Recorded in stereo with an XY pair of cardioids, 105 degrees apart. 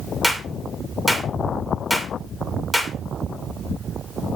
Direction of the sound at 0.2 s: 5° right.